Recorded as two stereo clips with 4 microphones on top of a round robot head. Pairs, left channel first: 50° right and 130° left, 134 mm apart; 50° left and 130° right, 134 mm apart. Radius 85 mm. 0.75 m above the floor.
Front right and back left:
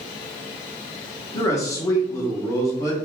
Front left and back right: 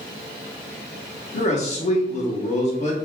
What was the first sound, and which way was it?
A man speaking, 15° left.